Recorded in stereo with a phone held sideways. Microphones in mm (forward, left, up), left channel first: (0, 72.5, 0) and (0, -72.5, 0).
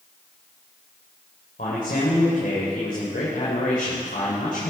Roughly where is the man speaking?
Left.